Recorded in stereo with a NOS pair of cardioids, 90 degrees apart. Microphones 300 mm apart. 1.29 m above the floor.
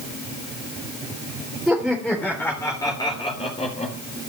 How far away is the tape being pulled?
No tape being pulled in this recording.